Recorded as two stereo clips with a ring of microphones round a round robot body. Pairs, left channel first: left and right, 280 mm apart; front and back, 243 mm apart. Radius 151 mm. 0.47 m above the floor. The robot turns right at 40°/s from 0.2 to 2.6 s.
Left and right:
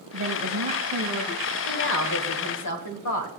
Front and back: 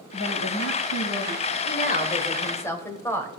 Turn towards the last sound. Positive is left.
turn(degrees=80)